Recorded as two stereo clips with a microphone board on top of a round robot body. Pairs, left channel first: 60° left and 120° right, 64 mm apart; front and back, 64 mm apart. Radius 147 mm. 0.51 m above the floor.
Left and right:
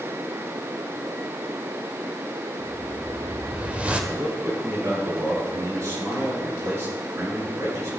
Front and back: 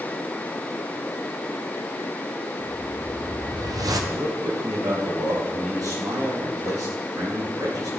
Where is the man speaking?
160° right, 8.5 m.